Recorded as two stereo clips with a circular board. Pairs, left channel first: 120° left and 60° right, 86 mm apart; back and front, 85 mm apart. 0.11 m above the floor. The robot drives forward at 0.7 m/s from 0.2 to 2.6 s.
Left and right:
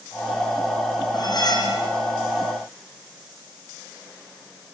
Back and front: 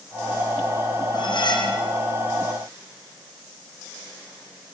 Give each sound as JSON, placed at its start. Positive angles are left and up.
{"t": 1.1, "sound": "cutlery clinking", "azimuth_deg": 155, "distance_m": 3.0}